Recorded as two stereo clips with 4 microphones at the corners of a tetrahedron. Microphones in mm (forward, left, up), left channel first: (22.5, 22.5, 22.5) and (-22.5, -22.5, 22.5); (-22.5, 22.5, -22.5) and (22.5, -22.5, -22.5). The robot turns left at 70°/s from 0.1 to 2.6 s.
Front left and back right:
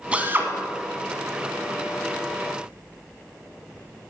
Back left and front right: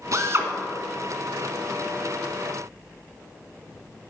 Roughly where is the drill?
Ahead right.